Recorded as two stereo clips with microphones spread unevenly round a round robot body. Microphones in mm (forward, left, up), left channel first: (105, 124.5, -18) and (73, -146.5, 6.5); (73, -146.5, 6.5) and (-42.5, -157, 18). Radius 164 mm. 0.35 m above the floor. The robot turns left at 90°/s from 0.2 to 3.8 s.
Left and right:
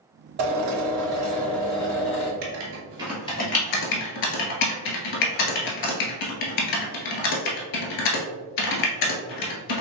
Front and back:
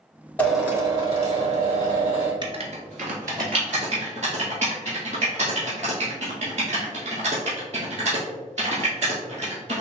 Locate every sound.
0.4 s a drill: 70° right, 1.9 m; by 2.3 s 115° left, 1.9 m
2.4 s writing: 120° right, 1.1 m; by 9.8 s 115° left, 1.1 m